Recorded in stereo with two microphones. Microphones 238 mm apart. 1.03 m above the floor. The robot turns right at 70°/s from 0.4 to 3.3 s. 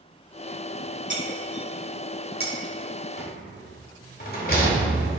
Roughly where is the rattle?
Left.